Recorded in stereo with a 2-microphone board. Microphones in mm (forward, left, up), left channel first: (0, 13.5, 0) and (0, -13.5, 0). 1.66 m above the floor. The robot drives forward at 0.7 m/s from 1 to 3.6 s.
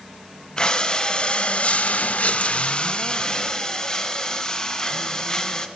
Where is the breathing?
35° left (ahead or behind), 0.9 m; by 5.7 s 20° left (ahead or behind), 1.3 m.